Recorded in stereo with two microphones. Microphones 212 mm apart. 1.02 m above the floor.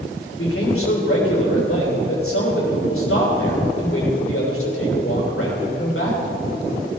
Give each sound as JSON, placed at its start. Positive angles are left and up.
{"t": 0.3, "sound": "a man speaking", "side_deg": 90, "distance_m": 3.0}